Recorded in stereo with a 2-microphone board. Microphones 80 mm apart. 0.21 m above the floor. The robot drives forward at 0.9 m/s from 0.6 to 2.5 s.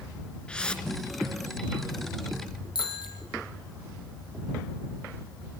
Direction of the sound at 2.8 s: 80° left.